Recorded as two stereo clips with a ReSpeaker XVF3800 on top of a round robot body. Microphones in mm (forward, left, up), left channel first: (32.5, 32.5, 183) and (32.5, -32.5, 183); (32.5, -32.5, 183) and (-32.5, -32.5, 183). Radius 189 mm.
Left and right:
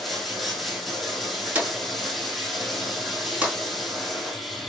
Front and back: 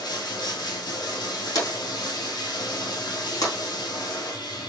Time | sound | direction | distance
0.0 | running water | straight ahead | 1.8 m
1.6 | a drawer | 25° right | 3.5 m